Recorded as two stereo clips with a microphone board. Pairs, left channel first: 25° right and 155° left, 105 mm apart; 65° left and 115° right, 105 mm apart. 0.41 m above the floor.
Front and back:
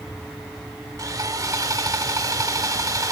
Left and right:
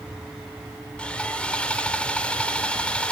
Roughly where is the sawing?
Behind left.